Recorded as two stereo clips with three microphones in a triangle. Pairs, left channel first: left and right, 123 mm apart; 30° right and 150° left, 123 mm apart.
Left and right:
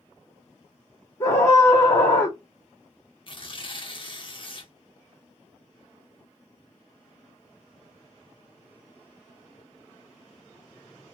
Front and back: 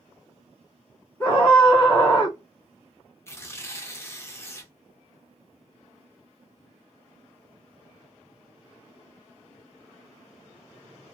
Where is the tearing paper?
40° left, 0.6 m.